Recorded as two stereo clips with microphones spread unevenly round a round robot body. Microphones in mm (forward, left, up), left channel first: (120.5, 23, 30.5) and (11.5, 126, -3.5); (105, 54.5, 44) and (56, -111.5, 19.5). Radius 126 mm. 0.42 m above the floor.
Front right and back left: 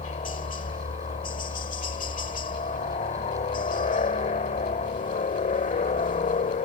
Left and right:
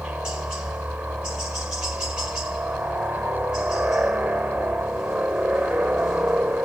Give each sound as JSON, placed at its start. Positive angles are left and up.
{"t": 0.0, "sound": "a helicopter", "azimuth_deg": -30}